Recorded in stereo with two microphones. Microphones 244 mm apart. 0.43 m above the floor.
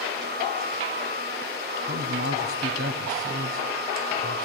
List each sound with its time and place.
1.8 s a man speaking: 65° right (ahead or behind), 2.5 m